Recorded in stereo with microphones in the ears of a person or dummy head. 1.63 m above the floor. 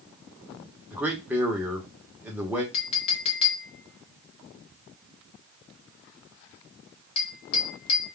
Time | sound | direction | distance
0.9 | a man speaking | 10° right (ahead or behind) | 0.8 m
2.7 | a clink | 35° left (ahead or behind) | 0.7 m